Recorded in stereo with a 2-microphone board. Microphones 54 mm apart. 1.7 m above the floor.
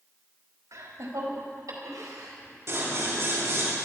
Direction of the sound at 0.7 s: 80° right.